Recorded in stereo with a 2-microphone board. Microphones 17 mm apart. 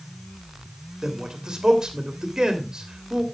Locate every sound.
1.0 s a man speaking: 45° right (ahead or behind), 2.5 m